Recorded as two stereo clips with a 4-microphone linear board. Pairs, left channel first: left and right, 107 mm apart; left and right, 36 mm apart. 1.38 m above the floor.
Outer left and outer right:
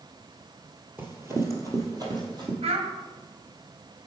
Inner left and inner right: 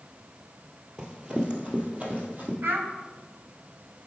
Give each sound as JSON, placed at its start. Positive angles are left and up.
{"t": 1.0, "sound": "running footsteps", "side_deg": -20, "distance_m": 1.4}
{"t": 2.6, "sound": "a child speaking", "side_deg": -70, "distance_m": 1.2}